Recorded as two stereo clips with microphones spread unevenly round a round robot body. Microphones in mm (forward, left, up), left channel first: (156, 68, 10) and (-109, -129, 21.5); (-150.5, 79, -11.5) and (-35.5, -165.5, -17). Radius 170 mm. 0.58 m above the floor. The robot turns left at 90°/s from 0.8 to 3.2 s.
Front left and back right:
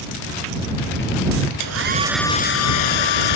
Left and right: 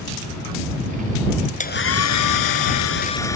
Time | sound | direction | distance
1.6 | a hair dryer | straight behind | ?